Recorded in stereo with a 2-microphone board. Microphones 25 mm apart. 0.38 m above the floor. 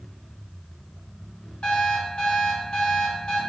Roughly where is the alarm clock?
Left.